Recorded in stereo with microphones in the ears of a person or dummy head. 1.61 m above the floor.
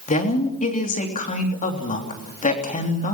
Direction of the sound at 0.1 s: 40° left (ahead or behind).